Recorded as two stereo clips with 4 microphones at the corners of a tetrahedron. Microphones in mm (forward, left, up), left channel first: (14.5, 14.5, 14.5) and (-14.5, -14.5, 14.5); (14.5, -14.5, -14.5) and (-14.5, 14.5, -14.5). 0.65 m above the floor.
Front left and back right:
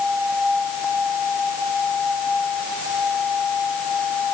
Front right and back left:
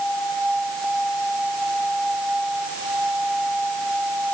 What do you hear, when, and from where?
Only background noise.